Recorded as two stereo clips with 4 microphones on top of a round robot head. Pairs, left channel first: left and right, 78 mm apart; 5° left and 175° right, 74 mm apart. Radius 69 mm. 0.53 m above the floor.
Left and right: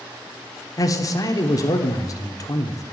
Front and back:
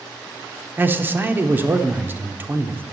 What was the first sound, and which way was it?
A man speaking, 125° left.